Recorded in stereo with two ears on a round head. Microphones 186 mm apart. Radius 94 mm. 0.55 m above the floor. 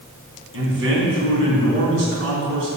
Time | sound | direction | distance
0.5 | a man speaking | 60° right (ahead or behind) | 4 m